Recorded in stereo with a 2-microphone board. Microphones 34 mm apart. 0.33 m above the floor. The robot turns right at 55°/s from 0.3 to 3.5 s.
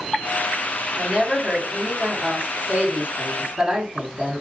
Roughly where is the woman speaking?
Behind.